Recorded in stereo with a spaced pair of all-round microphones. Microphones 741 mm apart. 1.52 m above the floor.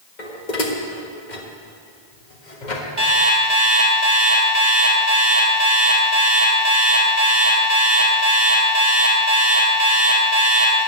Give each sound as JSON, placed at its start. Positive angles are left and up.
{"t": 0.2, "sound": "dishes clattering", "side_deg": 70, "distance_m": 1.7}
{"t": 3.0, "sound": "an alarm clock", "side_deg": -50, "distance_m": 3.5}